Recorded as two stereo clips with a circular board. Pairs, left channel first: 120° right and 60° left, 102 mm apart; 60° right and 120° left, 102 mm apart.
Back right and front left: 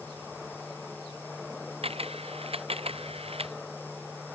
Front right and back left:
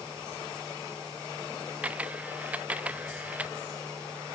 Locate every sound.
1.8 s a camera shutter: 45° left